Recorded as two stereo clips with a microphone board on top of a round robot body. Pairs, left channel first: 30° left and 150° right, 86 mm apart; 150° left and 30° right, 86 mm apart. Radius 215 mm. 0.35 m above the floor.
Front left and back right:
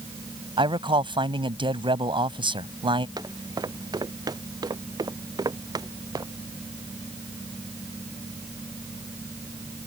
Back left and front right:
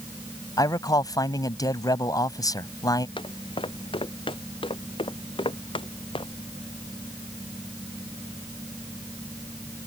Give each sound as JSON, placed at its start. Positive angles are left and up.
{"t": 0.6, "sound": "a man speaking", "azimuth_deg": -165}
{"t": 3.2, "sound": "footsteps", "azimuth_deg": 170}